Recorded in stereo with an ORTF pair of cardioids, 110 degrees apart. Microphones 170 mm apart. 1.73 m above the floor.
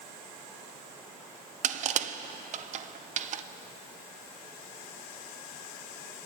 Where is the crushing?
45° right, 0.5 m.